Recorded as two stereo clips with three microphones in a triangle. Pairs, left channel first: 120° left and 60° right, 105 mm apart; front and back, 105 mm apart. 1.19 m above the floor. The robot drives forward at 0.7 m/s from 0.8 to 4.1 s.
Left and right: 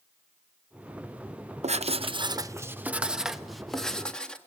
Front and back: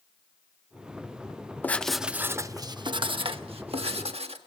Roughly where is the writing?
Right.